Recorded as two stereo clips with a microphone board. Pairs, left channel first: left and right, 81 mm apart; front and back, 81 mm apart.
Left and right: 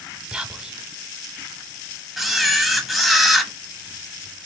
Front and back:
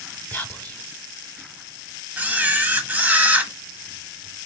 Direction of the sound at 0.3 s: 25° right.